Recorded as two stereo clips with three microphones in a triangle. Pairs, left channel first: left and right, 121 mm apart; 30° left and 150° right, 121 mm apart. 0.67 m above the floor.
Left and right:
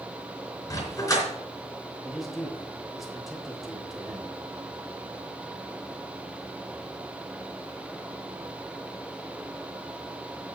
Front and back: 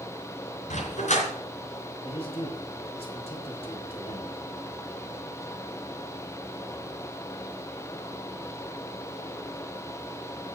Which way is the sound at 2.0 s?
Straight ahead.